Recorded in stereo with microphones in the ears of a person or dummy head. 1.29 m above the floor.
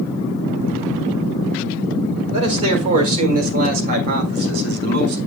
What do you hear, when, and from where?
2.3 s a man speaking: 35° right (ahead or behind), 4.5 m; by 5.2 s 65° right (ahead or behind), 4.5 m